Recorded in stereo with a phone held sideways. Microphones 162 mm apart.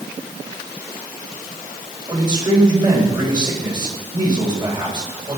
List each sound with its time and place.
2.1 s a man speaking: 25° right (ahead or behind), 3.5 m